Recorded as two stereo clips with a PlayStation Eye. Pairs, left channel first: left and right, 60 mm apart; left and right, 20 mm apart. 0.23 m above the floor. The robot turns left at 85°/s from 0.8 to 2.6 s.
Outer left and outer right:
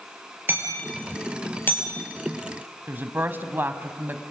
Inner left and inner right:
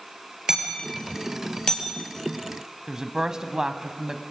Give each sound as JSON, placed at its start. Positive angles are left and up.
{"t": 0.5, "sound": "hammering", "side_deg": -40, "distance_m": 4.5}
{"t": 2.9, "sound": "a woman speaking", "side_deg": -35, "distance_m": 1.3}